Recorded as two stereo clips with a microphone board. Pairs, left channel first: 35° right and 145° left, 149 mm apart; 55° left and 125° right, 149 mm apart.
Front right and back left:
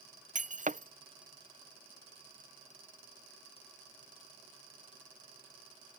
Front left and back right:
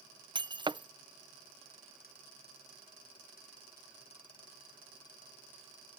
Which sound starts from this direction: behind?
Breaking glass, at 0.3 s.